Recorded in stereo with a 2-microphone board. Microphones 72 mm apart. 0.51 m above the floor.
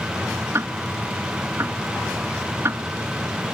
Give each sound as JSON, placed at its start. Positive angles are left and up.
{"t": 0.5, "sound": "ticking", "side_deg": -40}